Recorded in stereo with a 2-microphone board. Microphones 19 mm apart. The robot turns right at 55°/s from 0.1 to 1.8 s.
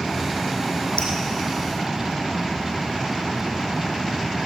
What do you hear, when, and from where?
1.0 s dripping: 80° left, 4 m; by 1.1 s 75° left (ahead or behind), 4 m